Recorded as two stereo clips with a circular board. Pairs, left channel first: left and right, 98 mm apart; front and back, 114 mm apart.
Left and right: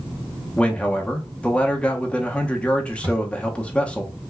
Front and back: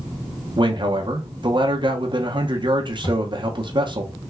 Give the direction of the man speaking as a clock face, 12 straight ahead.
7 o'clock.